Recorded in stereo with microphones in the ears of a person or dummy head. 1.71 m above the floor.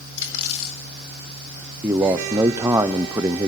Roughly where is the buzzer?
No buzzer in this recording.